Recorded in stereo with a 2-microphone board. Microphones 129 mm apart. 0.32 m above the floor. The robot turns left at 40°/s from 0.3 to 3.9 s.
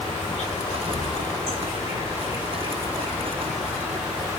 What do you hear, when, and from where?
0.0 s an insect: 130° left, 1.6 m; by 4.4 s 15° right, 1.6 m